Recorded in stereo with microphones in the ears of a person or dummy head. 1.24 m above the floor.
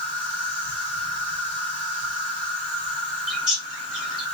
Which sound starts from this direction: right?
An insect, at 0.0 s.